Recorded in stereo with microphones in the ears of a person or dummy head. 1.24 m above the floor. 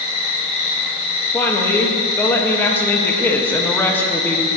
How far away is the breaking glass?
I don't hear breaking glass.